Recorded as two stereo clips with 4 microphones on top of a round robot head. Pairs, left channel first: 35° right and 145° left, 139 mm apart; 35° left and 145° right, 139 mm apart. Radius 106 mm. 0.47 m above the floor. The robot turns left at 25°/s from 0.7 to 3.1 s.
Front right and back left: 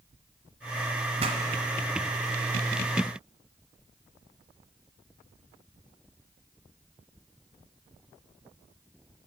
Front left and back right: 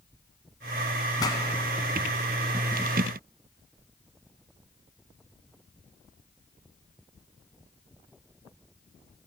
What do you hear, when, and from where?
1.2 s a pop: 100° left, 0.9 m; by 1.4 s 95° left, 0.9 m